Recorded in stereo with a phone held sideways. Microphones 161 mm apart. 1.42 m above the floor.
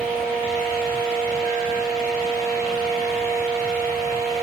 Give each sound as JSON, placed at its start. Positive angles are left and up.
{"t": 0.0, "sound": "a fan", "side_deg": -65, "distance_m": 1.1}